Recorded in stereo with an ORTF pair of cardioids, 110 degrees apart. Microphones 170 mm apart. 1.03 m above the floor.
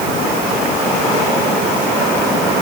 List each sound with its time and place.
Only background noise.